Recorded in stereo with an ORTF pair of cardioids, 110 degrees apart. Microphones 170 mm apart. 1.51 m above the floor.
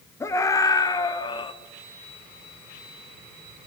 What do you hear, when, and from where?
0.2 s a scream: 15° left, 4 m; by 1.5 s 30° left, 3 m